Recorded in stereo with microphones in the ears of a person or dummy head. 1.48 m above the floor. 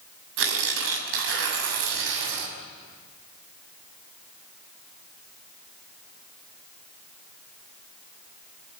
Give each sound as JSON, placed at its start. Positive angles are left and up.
{"t": 0.4, "sound": "tearing paper", "side_deg": -80, "distance_m": 6.0}